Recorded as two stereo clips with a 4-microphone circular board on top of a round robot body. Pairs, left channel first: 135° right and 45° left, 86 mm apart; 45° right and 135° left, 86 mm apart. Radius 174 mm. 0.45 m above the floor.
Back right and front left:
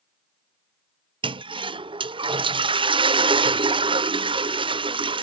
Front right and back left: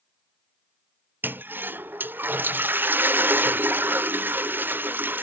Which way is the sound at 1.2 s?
65° left.